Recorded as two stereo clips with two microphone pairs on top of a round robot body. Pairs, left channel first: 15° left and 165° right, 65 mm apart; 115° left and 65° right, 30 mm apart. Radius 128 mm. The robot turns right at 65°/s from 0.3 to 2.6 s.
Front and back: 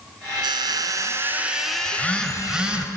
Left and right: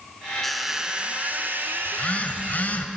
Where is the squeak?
155° right, 0.5 m; by 2.9 s 15° right, 0.5 m.